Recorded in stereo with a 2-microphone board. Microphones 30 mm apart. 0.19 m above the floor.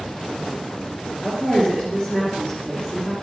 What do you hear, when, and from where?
1.2 s a woman speaking: 40° left (ahead or behind), 3 m